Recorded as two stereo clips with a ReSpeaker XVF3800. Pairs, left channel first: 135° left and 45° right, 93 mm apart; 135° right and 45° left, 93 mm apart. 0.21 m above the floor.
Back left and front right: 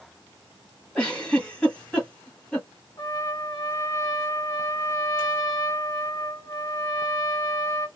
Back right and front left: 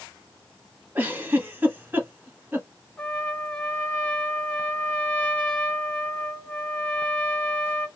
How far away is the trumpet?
About 0.9 m.